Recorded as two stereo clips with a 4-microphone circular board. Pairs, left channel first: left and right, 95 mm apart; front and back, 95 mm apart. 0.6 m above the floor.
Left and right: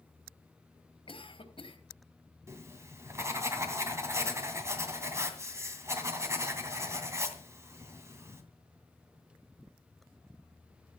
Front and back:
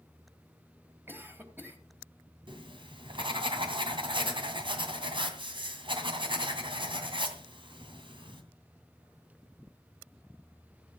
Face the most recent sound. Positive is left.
turn(degrees=-150)